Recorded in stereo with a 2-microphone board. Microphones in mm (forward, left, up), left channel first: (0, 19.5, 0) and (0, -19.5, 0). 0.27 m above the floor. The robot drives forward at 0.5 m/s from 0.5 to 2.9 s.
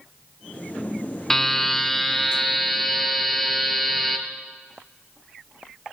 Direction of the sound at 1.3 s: 5° left (ahead or behind).